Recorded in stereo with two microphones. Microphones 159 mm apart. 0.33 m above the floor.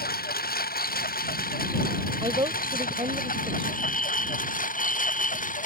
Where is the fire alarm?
55° left (ahead or behind).